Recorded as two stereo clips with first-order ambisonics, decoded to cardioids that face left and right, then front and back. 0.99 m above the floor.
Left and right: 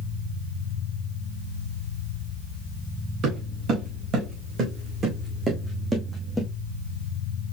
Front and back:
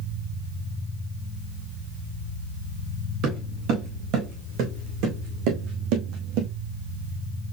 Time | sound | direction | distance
3.2 | footsteps | 140° right | 3.5 m